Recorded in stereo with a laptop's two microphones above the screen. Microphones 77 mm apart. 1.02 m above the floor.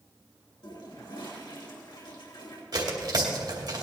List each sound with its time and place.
0.6 s a toilet flushing: 80° left, 3 m
2.7 s tearing paper: 65° right (ahead or behind), 2.5 m